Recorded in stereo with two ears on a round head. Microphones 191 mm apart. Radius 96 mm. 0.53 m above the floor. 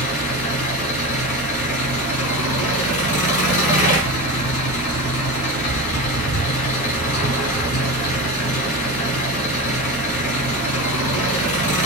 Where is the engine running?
75° left (ahead or behind), 1.5 m.